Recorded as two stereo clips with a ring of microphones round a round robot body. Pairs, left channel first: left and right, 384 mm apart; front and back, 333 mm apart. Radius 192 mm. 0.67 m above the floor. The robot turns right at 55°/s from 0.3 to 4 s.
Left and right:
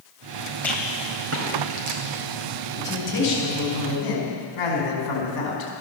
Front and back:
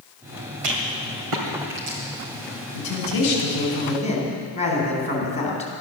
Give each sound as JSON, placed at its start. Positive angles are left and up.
{"t": 0.6, "sound": "a rattle", "azimuth_deg": 175, "distance_m": 2.5}
{"t": 2.7, "sound": "a man speaking", "azimuth_deg": 0, "distance_m": 5.0}